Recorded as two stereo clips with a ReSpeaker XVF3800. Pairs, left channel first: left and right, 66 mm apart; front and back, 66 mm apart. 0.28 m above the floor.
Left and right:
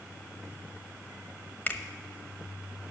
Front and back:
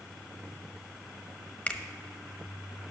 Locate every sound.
1.7 s a finger snap: 55° left, 0.8 m